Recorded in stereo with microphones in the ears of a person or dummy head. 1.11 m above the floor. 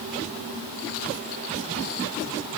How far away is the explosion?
I don't hear an explosion.